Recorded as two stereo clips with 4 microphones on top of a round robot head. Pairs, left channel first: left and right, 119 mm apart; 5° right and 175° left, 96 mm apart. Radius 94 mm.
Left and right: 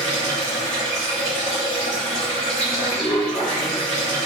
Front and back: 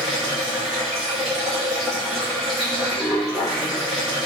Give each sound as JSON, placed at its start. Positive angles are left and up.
{"t": 0.0, "sound": "running water", "azimuth_deg": 85, "distance_m": 0.8}